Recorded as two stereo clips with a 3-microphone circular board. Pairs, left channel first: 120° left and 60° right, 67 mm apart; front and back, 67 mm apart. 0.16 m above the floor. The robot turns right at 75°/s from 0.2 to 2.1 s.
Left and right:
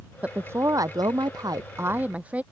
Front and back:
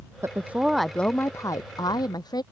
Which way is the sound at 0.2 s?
135° right.